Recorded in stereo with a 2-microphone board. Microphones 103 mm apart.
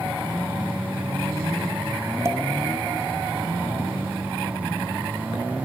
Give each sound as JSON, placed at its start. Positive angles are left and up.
{"t": 2.2, "sound": "a pop", "side_deg": -30, "distance_m": 0.7}